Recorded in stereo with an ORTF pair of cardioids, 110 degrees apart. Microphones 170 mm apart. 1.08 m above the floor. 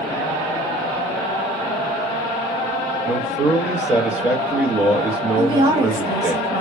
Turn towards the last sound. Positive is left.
turn(degrees=-25)